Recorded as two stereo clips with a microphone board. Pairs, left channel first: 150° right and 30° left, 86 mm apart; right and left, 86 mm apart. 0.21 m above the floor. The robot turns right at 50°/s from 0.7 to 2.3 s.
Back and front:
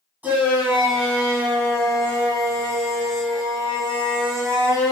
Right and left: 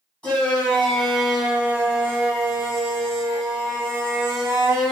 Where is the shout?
25° right, 1.9 m; by 4.9 s 55° left, 1.9 m.